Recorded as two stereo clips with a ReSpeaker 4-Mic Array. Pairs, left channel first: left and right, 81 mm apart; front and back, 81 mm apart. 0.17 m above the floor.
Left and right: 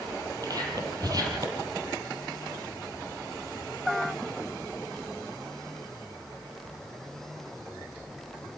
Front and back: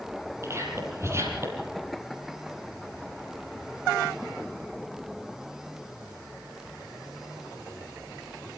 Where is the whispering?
125° right, 6 m.